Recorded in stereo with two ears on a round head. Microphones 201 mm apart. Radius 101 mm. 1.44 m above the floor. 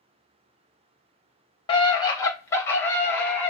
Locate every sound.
1.7 s a scream: 25° left (ahead or behind), 1.2 m; by 3.5 s 10° left (ahead or behind), 2.5 m